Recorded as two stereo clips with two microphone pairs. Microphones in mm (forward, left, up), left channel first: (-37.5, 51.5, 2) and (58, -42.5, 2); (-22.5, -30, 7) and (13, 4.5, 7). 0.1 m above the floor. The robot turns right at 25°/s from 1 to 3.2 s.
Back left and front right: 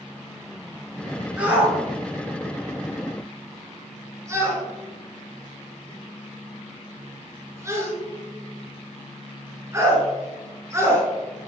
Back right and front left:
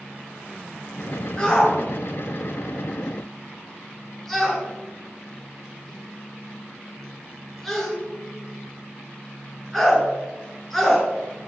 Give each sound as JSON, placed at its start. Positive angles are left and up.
{"t": 1.4, "sound": "a shout", "azimuth_deg": -110, "distance_m": 1.5}